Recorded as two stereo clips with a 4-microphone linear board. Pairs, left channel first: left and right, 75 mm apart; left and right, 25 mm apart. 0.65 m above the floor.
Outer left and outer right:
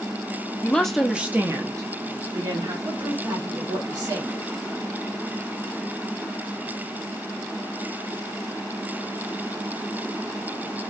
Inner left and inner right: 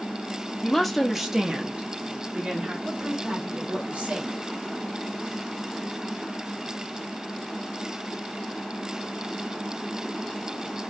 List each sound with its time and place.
0.6 s a woman speaking: 20° left (ahead or behind), 0.8 m; by 2.8 s 65° right (ahead or behind), 1.5 m
2.9 s a woman speaking: 60° right (ahead or behind), 1.7 m